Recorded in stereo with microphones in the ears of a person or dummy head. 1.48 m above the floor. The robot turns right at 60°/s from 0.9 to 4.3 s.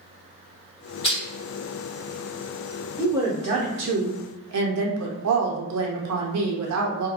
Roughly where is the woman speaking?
Behind.